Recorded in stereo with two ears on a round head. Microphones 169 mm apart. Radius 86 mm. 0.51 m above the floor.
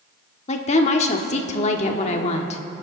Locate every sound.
0.5 s a woman speaking: 35° left (ahead or behind), 1.2 m